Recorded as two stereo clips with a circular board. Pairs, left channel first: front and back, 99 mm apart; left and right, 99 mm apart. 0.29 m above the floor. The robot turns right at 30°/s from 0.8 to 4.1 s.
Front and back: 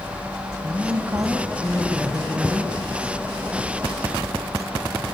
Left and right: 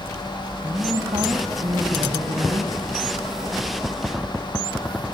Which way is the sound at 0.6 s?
135° right.